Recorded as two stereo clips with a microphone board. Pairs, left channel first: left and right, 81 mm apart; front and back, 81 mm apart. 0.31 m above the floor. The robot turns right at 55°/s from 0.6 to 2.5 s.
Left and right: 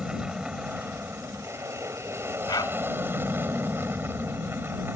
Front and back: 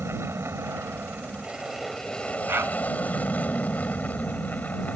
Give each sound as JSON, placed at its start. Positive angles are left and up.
{"t": 0.0, "sound": "an aircraft", "azimuth_deg": -160}
{"t": 2.5, "sound": "a dog barking", "azimuth_deg": 120}